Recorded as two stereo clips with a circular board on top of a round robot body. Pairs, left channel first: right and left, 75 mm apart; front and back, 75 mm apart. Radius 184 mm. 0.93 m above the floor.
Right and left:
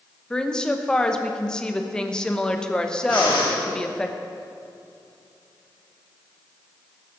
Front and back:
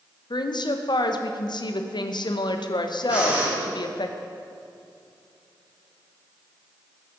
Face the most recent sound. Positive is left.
turn(degrees=-105)